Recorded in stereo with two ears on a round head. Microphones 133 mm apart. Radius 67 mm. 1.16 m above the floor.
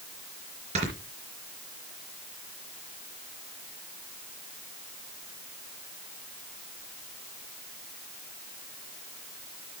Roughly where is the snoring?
Right.